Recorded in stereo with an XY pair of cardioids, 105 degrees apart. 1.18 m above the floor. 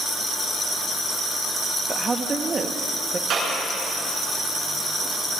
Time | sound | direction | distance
1.9 | a woman speaking | 30° right | 1.5 m
3.3 | a clap | 55° right | 9.5 m